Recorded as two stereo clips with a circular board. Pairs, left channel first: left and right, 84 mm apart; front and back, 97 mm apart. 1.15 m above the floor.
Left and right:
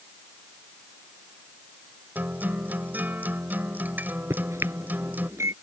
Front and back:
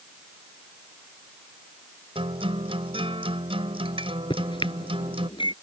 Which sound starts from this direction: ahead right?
A microwave, at 4.3 s.